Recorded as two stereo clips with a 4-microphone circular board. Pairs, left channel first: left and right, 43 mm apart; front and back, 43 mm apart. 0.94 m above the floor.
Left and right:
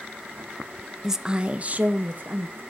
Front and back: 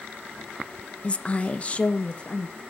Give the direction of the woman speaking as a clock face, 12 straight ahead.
1 o'clock.